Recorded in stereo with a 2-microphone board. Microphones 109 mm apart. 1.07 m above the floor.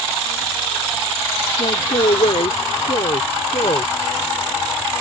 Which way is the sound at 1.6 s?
85° left.